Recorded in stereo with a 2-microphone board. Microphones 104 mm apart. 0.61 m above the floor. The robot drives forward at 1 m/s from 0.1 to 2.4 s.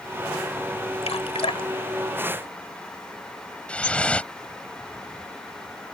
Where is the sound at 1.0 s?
75° left (ahead or behind); by 2.9 s 50° left (ahead or behind).